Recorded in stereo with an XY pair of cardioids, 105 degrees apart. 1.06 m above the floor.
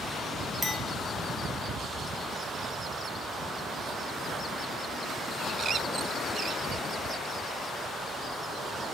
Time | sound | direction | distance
0.6 | a clink | 10° left | 1.7 m